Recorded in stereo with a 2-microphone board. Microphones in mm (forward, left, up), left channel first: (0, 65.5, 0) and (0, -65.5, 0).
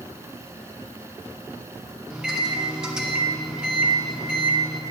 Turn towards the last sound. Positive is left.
turn(degrees=-5)  # may be behind; listen again after turning